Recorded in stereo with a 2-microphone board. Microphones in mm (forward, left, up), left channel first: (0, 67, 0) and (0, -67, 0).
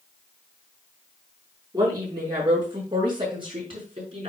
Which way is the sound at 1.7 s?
30° right (ahead or behind).